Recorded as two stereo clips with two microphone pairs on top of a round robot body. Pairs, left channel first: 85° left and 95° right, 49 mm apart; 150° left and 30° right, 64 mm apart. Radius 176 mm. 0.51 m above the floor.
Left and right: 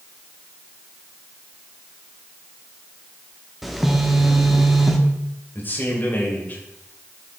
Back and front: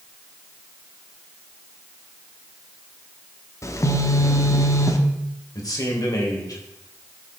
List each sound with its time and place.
3.6 s a phone buzzing: straight behind, 1.3 m
5.5 s a man speaking: 140° left, 3 m